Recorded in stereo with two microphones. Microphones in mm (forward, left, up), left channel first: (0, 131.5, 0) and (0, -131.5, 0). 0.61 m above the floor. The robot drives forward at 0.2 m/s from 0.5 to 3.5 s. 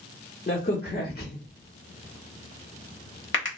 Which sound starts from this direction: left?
A crack, at 0.5 s.